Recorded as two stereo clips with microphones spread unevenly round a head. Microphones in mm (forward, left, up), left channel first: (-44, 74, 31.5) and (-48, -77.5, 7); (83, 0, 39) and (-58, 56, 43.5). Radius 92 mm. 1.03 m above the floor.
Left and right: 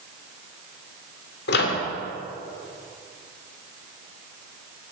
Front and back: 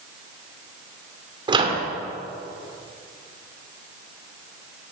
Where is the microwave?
100° left, 2 m.